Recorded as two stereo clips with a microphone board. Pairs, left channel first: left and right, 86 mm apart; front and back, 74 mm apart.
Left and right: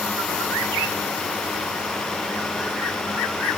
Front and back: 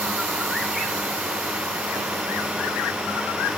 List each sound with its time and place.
Only background noise.